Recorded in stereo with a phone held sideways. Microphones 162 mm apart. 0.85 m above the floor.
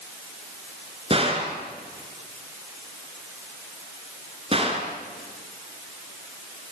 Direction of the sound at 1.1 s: 35° right (ahead or behind).